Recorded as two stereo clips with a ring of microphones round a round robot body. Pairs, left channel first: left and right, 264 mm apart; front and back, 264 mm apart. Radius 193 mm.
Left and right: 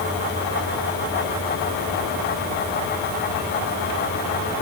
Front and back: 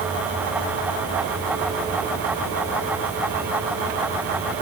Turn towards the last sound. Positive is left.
No sound to turn to.